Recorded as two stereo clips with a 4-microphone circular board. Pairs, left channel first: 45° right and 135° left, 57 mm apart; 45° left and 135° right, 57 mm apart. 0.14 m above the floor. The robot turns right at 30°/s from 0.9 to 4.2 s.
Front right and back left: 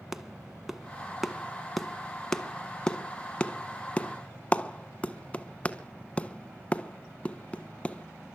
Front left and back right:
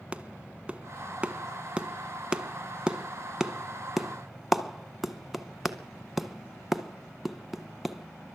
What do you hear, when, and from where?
0.1 s a clap: 150° right, 0.9 m; by 8.3 s 50° right, 0.9 m